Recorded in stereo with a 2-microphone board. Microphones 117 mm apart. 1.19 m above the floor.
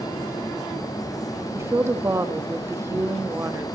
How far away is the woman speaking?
About 1.5 m.